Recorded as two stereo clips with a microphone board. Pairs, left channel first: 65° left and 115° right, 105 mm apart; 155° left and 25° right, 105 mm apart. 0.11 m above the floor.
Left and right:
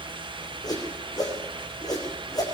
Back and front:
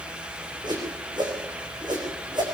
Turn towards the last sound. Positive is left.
turn(degrees=20)